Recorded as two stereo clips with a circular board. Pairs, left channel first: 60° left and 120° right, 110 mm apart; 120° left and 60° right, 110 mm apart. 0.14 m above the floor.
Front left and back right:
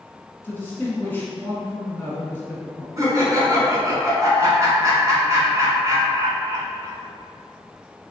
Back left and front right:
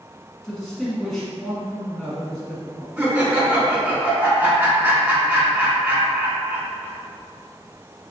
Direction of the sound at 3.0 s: 115° right.